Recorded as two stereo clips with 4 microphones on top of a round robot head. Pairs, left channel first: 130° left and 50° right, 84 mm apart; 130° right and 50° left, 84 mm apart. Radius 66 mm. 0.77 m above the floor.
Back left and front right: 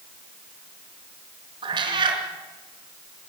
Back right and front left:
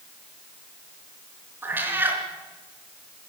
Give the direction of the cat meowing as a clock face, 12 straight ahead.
1 o'clock.